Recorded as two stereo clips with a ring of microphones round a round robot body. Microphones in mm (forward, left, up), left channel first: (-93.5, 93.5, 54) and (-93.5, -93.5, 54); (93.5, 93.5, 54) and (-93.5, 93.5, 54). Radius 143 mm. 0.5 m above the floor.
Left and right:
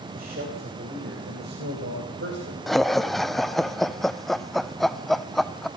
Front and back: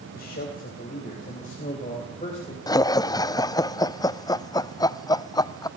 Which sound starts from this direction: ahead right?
A man speaking, at 0.1 s.